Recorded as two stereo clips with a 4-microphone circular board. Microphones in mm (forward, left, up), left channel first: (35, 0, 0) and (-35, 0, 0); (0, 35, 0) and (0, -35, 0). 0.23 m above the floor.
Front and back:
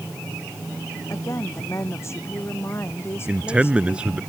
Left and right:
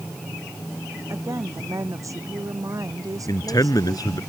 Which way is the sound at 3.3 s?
105° left.